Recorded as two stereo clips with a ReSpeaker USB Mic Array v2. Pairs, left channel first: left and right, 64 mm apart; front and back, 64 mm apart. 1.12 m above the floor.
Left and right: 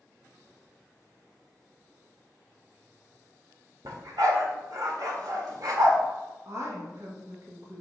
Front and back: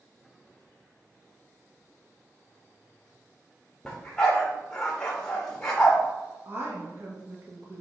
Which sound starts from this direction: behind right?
A woman speaking, at 6.5 s.